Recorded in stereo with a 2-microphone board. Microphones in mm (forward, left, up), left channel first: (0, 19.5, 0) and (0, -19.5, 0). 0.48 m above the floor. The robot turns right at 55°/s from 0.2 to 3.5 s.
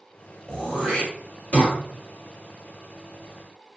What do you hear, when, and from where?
0.5 s throat clearing: 20° left (ahead or behind), 1.4 m; by 1.8 s 35° left (ahead or behind), 1.4 m